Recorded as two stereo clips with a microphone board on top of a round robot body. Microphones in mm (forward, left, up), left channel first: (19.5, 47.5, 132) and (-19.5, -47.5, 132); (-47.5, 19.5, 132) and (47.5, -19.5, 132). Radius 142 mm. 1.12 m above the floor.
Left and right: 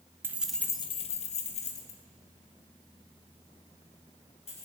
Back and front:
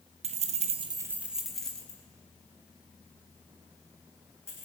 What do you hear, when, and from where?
0.2 s keys jangling: 40° right, 1.0 m; by 4.7 s 90° left, 6 m